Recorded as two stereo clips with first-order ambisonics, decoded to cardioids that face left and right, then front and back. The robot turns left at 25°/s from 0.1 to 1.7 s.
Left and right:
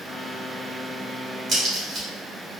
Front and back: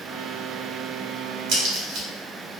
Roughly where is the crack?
Behind right.